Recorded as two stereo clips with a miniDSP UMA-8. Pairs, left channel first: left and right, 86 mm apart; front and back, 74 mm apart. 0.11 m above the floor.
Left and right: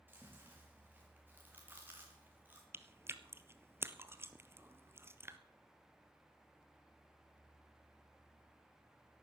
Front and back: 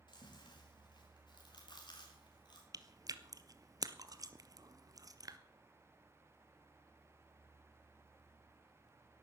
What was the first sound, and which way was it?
Chewing, 20° right.